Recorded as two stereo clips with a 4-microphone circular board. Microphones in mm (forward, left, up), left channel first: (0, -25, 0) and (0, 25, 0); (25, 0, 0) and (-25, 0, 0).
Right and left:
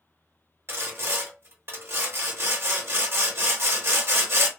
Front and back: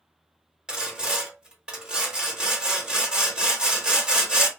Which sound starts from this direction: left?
Sawing, at 0.7 s.